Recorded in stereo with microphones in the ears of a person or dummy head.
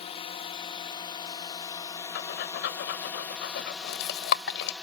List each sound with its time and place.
0.0 s a drone: 20° left (ahead or behind); by 4.8 s 10° right (ahead or behind)
2.1 s breathing: 75° left (ahead or behind)